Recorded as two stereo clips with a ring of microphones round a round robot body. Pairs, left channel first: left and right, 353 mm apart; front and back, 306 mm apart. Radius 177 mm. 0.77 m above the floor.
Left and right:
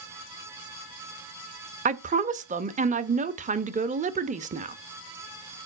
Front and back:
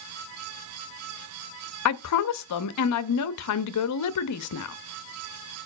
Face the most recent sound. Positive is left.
turn(degrees=-25)